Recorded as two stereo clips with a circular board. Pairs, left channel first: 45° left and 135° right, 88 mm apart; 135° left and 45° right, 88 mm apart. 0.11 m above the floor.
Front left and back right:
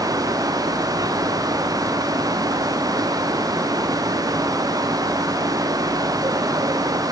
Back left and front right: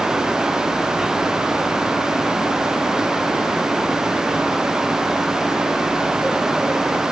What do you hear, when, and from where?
Only background noise.